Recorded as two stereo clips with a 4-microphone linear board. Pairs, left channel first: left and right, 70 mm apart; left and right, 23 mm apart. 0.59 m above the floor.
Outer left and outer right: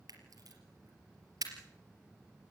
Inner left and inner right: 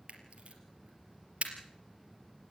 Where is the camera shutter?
60° right (ahead or behind), 4 m.